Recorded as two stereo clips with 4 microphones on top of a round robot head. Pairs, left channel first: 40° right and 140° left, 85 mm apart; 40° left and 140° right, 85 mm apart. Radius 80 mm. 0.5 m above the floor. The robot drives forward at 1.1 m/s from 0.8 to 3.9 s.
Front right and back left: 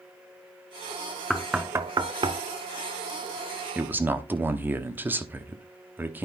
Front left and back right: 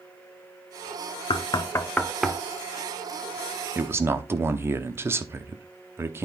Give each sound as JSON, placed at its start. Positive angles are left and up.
{"t": 1.3, "sound": "knocking", "azimuth_deg": 45, "distance_m": 0.8}
{"t": 3.8, "sound": "a man speaking", "azimuth_deg": -170, "distance_m": 1.1}